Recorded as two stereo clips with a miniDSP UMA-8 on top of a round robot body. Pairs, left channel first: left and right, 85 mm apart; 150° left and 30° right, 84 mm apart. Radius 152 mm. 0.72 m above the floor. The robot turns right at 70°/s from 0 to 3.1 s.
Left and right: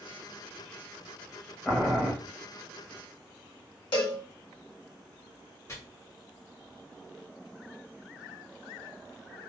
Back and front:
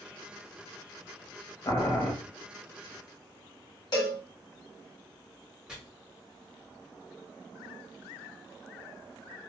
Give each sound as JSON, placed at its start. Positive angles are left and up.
{"t": 1.6, "sound": "boiling", "azimuth_deg": 180, "distance_m": 1.2}
{"t": 3.9, "sound": "a cowbell", "azimuth_deg": 110, "distance_m": 1.3}
{"t": 5.7, "sound": "chopping", "azimuth_deg": 50, "distance_m": 1.6}